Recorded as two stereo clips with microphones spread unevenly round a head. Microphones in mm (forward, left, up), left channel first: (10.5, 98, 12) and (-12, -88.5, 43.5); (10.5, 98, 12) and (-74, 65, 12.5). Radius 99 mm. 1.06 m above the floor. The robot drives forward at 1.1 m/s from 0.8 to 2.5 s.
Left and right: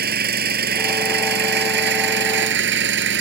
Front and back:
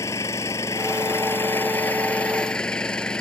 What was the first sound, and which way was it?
An engine running, 55° right.